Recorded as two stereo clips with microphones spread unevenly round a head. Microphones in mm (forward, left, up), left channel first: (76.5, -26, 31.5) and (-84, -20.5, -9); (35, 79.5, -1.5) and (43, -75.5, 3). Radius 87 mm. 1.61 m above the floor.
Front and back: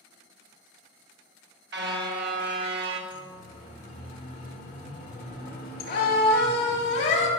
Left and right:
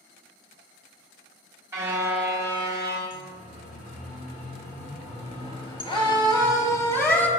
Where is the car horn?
160° right, 2 m.